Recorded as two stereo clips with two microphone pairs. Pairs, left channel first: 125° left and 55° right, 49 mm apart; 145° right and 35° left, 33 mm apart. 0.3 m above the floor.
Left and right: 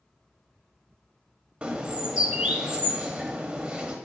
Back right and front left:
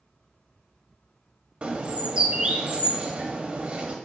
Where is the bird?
5° left, 0.5 m.